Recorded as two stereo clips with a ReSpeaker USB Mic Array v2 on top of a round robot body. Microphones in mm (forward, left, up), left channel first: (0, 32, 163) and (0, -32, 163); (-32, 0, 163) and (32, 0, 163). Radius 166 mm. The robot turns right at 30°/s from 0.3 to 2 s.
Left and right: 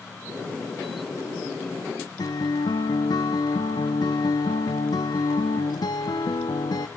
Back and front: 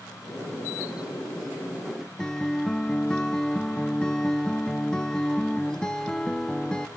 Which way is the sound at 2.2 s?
100° left.